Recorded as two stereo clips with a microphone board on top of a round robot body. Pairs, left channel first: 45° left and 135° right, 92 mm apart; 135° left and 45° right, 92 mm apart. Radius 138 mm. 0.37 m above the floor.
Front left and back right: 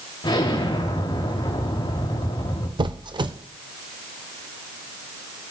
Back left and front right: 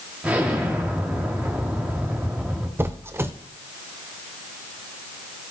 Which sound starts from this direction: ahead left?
An explosion, at 0.2 s.